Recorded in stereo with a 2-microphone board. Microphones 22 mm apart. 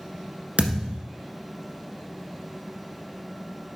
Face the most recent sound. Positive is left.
turn(degrees=-70)  # may be behind; listen again after turning